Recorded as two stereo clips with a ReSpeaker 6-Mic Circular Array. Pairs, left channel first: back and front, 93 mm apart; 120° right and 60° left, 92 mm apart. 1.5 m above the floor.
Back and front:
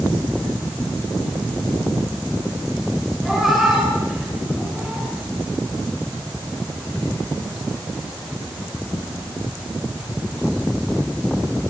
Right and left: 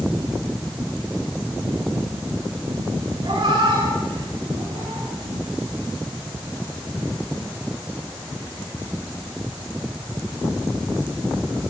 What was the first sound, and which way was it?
A cat meowing, 85° left.